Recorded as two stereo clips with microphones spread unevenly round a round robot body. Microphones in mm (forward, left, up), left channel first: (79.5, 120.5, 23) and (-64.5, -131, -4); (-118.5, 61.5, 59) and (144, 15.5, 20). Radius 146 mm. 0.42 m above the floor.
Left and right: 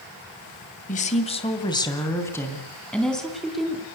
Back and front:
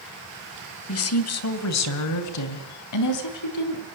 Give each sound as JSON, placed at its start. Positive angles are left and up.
{"t": 0.9, "sound": "a woman speaking", "azimuth_deg": 130, "distance_m": 2.0}